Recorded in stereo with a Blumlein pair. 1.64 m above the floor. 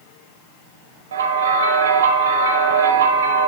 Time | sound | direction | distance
1.1 | a bell | 65° right | 0.9 m